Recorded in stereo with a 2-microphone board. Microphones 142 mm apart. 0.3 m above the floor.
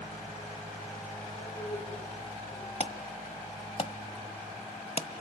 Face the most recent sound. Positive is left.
turn(degrees=45)  # may be behind; listen again after turning